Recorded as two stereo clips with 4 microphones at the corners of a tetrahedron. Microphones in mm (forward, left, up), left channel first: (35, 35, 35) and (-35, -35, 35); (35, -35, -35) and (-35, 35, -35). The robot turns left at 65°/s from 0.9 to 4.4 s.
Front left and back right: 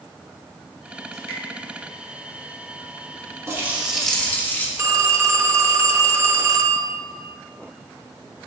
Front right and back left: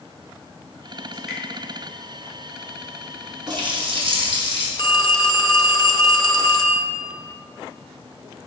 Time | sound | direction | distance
1.1 | dripping | 55° left | 2.5 m
3.5 | a running tap | 170° left | 1.3 m
4.8 | a phone ringing | 80° right | 0.6 m